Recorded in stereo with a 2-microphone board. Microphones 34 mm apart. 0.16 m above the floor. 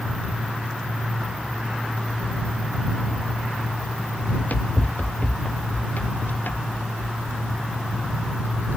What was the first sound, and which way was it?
Running footsteps, 55° left (ahead or behind).